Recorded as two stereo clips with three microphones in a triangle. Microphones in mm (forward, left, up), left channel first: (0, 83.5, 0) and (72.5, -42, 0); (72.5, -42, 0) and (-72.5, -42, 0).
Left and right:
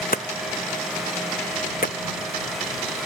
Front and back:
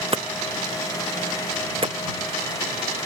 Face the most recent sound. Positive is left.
turn(degrees=130)